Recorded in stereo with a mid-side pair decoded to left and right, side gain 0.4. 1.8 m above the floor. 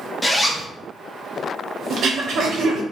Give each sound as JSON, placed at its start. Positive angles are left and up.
{"t": 0.2, "sound": "a zipper", "azimuth_deg": 10, "distance_m": 0.6}
{"t": 1.9, "sound": "throat clearing", "azimuth_deg": -65, "distance_m": 0.7}